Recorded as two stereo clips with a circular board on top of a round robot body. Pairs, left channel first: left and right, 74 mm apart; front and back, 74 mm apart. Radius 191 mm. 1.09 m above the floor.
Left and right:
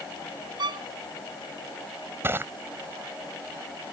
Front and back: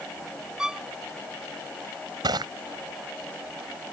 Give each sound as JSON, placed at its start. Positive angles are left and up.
{"t": 0.6, "sound": "a violin", "azimuth_deg": -100}
{"t": 2.2, "sound": "crushing", "azimuth_deg": -150}